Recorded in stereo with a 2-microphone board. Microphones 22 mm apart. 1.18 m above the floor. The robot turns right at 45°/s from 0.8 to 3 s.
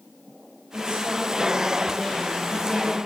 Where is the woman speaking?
60° right, 3.5 m; by 3.0 s 35° left, 3.5 m.